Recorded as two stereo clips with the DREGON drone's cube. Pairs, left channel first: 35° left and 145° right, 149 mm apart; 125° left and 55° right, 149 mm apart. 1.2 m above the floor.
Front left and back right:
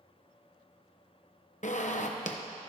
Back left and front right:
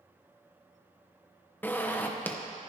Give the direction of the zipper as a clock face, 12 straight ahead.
10 o'clock.